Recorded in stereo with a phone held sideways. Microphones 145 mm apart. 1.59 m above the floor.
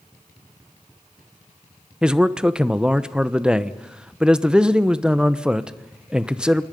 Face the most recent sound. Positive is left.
turn(degrees=-5)  # may be behind; listen again after turning